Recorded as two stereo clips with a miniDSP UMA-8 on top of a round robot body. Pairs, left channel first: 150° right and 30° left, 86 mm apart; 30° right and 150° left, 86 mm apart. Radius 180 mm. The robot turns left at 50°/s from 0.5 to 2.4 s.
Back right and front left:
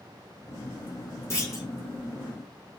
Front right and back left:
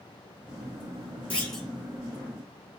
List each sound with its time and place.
1.3 s a clunk: 100° right, 2 m; by 1.7 s 120° right, 2 m